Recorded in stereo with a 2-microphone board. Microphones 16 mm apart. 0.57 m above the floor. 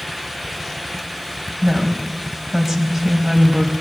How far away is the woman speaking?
About 4 m.